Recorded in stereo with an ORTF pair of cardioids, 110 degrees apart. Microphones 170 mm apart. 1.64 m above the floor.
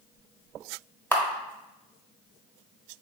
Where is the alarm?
No alarm in this recording.